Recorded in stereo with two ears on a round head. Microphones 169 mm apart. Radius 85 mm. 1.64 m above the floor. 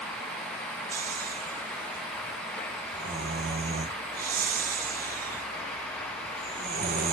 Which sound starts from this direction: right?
Snoring, at 0.9 s.